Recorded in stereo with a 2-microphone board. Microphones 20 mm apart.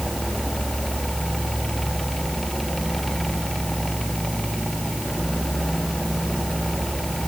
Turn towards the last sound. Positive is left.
No sound to turn to.